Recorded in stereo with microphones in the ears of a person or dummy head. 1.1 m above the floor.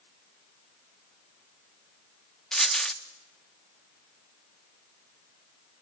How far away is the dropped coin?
About 0.8 m.